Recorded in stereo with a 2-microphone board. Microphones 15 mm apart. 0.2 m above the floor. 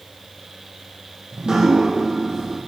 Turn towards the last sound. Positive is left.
turn(degrees=-70)  # may be behind; listen again after turning